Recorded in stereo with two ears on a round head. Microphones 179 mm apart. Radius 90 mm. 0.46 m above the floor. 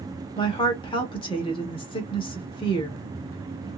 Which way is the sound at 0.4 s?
25° left (ahead or behind).